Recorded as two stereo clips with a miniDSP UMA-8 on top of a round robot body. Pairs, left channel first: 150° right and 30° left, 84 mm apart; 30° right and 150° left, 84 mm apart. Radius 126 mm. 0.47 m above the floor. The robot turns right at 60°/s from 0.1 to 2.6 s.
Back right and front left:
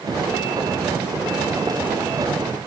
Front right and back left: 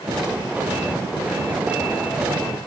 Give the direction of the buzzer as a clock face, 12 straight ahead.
I don't hear a buzzer.